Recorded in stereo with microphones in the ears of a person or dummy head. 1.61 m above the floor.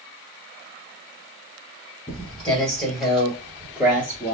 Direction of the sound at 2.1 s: 10° left (ahead or behind).